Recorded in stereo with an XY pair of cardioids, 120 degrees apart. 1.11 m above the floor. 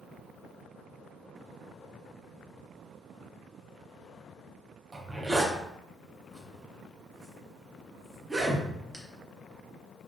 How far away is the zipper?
About 0.6 m.